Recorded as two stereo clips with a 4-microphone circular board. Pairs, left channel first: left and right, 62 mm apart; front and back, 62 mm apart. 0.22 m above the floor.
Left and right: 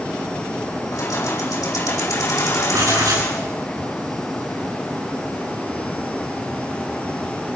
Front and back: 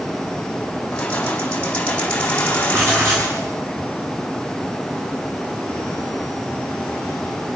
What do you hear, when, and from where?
0.9 s keys jangling: 70° left, 8.5 m
2.7 s writing: 130° right, 7 m